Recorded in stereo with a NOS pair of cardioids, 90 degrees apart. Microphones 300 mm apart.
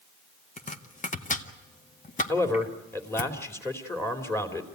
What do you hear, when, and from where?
0.6 s chopping: 25° left, 1.7 m
2.3 s a man speaking: 10° left, 3 m